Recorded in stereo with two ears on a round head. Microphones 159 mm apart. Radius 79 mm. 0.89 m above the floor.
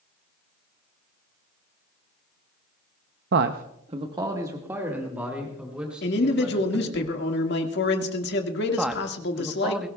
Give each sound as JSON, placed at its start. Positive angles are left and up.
{"t": 3.3, "sound": "a man speaking", "side_deg": -65, "distance_m": 0.6}
{"t": 6.0, "sound": "a man speaking", "side_deg": 65, "distance_m": 1.7}
{"t": 8.8, "sound": "a man speaking", "side_deg": -5, "distance_m": 0.8}